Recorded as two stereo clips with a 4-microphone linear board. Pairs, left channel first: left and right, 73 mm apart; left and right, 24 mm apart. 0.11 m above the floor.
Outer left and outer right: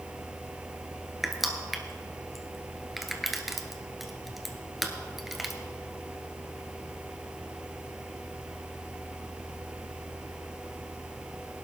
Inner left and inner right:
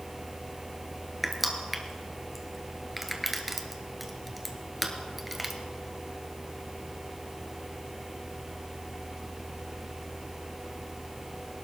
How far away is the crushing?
About 1.4 m.